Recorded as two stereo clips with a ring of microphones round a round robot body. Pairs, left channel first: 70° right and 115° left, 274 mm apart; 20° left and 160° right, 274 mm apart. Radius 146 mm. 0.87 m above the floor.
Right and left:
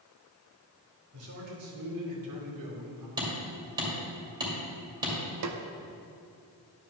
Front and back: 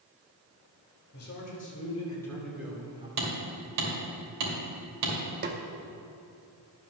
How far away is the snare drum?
About 0.8 m.